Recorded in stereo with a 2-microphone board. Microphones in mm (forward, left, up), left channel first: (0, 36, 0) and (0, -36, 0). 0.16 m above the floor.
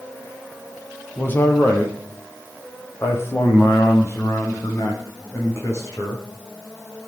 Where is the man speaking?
25° left (ahead or behind), 5 m; by 6.2 s 40° left (ahead or behind), 10 m.